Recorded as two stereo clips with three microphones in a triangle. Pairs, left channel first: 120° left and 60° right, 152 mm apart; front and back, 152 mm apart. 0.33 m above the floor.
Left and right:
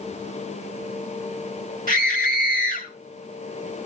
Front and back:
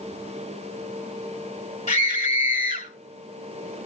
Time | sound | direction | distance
1.9 | a scream | 45° right | 7.5 m